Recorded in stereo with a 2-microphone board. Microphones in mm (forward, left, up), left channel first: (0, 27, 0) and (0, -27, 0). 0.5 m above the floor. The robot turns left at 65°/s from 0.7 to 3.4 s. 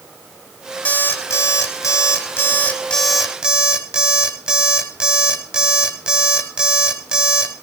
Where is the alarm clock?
150° left, 1.7 m; by 7.5 s 15° right, 1.7 m.